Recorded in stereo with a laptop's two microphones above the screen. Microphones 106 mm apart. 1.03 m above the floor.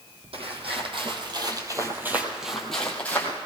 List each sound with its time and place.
0.3 s footsteps: 65° right (ahead or behind), 2.5 m; by 3.4 s 20° left (ahead or behind), 2 m